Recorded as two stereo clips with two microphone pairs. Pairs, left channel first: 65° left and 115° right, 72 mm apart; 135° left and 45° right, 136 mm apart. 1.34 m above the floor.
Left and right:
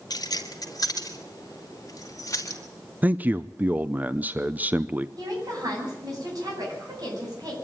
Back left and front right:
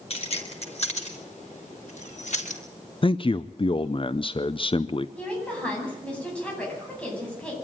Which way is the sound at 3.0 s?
175° right.